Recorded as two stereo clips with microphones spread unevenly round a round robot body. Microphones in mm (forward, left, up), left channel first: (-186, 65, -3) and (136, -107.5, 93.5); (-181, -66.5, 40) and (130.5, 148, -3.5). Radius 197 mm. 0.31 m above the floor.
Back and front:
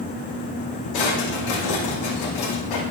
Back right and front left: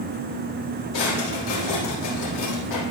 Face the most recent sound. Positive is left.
turn(degrees=180)